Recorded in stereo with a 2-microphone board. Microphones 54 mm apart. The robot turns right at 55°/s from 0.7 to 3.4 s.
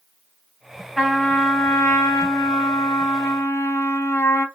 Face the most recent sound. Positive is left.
turn(degrees=130)